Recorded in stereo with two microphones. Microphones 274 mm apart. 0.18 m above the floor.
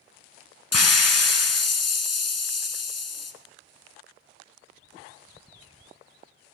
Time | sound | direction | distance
0.7 | a hiss | 65° left (ahead or behind) | 0.6 m